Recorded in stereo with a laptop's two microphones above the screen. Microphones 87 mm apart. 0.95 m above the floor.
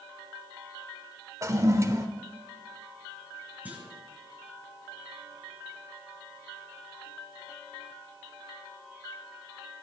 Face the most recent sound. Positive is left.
turn(degrees=-20)  # may be behind; listen again after turning